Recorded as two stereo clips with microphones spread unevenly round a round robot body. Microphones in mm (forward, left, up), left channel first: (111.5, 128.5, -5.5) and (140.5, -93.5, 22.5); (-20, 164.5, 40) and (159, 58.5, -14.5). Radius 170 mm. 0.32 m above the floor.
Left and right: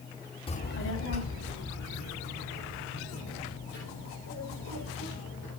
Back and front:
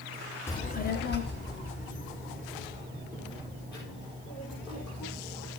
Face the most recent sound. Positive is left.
turn(degrees=120)